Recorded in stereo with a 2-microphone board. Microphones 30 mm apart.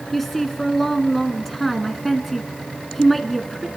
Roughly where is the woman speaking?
Centre.